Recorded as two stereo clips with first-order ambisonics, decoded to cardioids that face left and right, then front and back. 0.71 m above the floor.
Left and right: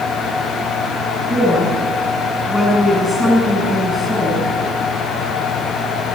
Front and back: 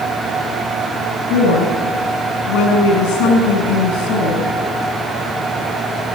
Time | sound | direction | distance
1.3 | a woman speaking | 15° right | 6 m